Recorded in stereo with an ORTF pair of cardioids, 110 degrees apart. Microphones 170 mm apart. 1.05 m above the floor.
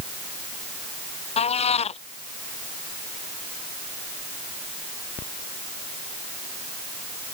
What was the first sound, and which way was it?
A cat meowing, 40° left.